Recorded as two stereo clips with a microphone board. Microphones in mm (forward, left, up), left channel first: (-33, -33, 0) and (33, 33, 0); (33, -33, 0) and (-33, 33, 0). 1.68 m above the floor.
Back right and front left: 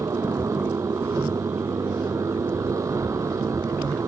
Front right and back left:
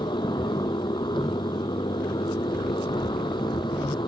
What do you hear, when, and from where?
0.0 s a motorcycle: 10° right